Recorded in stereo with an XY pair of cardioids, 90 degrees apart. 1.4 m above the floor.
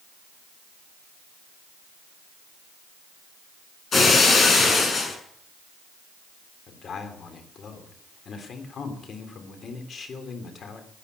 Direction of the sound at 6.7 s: 55° left.